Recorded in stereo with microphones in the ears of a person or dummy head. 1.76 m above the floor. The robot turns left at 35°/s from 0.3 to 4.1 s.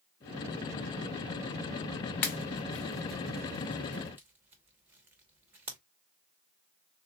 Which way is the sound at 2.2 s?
10° left (ahead or behind).